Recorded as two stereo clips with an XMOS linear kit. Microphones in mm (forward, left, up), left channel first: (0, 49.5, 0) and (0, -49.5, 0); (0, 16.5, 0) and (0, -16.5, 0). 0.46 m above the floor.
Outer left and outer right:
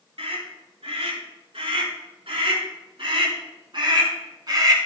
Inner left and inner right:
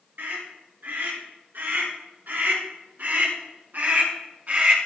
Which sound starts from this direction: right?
A scream, at 0.2 s.